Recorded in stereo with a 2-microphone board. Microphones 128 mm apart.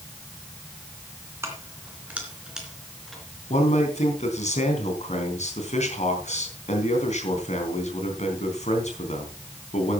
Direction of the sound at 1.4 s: 20° right (ahead or behind).